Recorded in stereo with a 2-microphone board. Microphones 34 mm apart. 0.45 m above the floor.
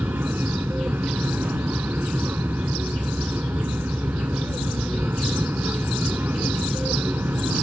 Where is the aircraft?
75° right (ahead or behind).